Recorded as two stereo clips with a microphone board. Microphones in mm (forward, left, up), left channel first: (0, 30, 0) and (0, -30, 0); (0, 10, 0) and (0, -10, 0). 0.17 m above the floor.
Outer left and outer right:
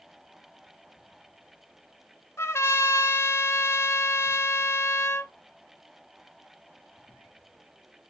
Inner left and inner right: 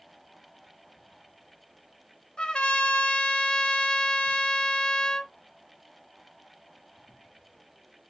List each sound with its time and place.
2.4 s a trumpet: 55° left (ahead or behind), 0.8 m